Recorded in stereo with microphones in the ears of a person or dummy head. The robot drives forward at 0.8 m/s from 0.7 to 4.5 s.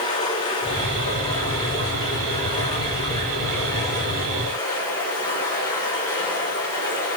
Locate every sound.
0.0 s running water: 25° left (ahead or behind), 3.5 m; by 7.2 s 15° left (ahead or behind), 6.5 m